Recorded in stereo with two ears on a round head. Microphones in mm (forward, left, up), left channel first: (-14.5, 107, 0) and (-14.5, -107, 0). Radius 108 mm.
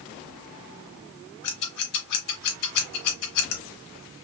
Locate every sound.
1.4 s scissors: 70° left (ahead or behind), 2.5 m